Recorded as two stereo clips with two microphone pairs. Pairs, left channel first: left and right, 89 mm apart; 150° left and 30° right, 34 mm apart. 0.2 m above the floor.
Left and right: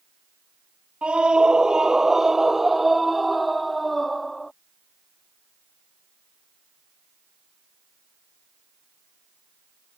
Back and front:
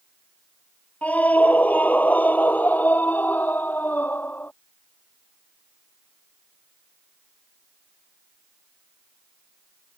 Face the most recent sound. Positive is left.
turn(degrees=175)